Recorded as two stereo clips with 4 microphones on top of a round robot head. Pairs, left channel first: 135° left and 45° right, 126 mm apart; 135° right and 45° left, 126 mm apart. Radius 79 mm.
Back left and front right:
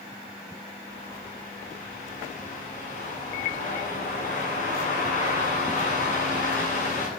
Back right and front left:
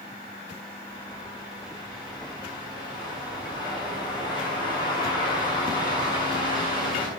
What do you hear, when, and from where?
0.9 s a bird: 165° left, 7.5 m